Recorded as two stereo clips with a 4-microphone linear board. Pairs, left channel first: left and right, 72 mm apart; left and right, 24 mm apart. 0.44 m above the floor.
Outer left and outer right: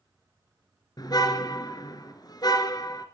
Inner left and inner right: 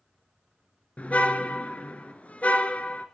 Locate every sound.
1.0 s a car horn: 65° left (ahead or behind), 3 m